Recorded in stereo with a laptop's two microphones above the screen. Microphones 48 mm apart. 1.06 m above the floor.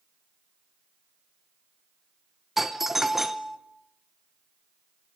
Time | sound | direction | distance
2.6 | a doorbell | 5° right (ahead or behind) | 0.7 m